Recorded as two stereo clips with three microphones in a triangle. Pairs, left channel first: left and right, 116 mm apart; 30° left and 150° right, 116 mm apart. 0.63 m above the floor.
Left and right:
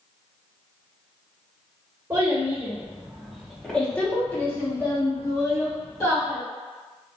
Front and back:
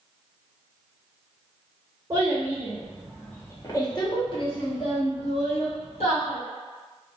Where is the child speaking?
120° right, 0.8 m; by 6.4 s 35° left, 1.9 m.